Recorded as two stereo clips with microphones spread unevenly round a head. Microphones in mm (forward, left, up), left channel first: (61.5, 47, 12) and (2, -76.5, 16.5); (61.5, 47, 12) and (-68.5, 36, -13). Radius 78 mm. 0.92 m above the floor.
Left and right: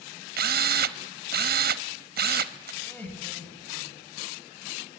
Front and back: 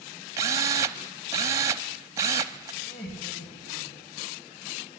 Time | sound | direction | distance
0.4 | a drill | 105° right | 0.9 m
2.8 | laughter | 15° right | 7.5 m